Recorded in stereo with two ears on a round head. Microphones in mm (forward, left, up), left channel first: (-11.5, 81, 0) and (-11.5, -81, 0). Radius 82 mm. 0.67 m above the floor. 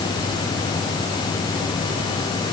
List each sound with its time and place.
Only background noise.